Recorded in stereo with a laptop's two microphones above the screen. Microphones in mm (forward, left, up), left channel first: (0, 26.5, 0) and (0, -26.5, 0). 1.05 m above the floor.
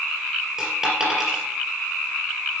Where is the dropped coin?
10° right (ahead or behind), 3 m.